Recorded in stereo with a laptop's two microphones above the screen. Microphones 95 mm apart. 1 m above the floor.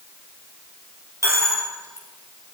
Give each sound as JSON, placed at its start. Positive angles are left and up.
{"t": 1.2, "sound": "a dropped coin", "side_deg": -30, "distance_m": 2.5}